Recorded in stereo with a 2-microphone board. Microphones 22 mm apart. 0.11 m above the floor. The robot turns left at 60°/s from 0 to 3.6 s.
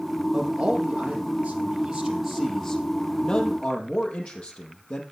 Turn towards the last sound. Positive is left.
turn(degrees=120)